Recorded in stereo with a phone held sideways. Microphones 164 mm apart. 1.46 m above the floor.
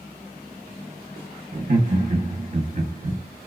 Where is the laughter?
55° right (ahead or behind), 0.7 m.